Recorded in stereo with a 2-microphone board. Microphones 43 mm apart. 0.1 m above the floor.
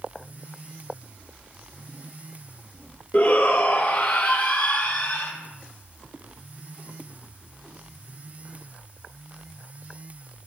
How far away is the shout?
About 2 m.